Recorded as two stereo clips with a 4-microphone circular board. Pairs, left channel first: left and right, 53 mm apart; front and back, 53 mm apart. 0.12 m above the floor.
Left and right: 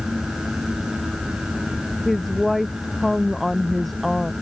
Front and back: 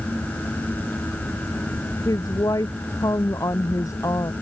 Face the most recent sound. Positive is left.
turn(degrees=0)